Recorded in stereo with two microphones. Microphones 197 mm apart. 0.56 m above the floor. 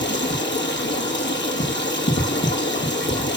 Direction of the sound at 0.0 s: 65° left (ahead or behind).